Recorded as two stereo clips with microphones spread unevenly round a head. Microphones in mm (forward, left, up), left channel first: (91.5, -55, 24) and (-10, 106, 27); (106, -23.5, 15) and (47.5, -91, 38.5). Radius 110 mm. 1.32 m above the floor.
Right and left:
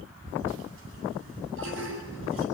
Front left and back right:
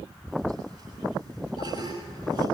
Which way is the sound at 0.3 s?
105° left.